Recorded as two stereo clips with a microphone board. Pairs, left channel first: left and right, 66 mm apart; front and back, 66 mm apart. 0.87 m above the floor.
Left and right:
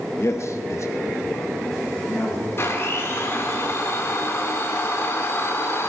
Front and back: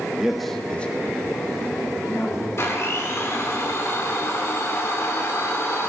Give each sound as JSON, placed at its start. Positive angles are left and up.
{"t": 0.2, "sound": "a man speaking", "azimuth_deg": 105, "distance_m": 1.0}
{"t": 2.6, "sound": "a blender", "azimuth_deg": 45, "distance_m": 1.9}